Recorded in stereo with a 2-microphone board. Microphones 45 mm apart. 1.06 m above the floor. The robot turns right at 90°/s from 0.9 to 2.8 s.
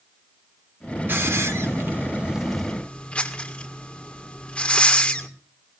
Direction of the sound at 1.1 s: 55° right (ahead or behind).